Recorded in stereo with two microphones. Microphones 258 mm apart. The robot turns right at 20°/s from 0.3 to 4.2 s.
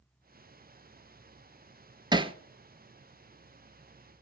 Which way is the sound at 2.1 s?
15° right (ahead or behind).